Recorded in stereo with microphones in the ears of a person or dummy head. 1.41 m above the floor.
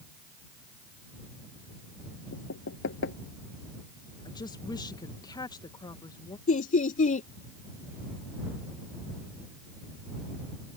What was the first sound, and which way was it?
Knocking, 70° left (ahead or behind).